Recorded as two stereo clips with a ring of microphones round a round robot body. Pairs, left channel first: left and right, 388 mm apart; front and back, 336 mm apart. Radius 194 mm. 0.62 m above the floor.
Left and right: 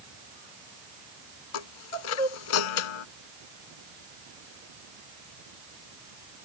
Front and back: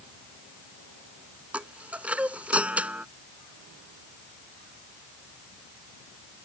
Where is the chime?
95° left.